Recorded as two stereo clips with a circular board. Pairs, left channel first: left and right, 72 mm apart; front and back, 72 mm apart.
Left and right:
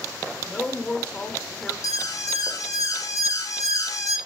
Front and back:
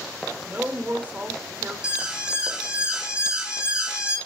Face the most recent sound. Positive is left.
turn(degrees=105)